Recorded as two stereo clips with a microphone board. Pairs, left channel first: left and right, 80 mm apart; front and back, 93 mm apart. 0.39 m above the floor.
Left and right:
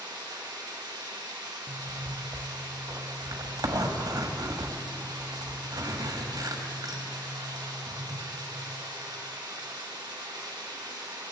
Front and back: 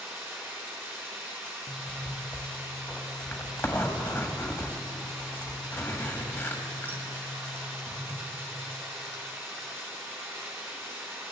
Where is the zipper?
65° right, 1.5 m.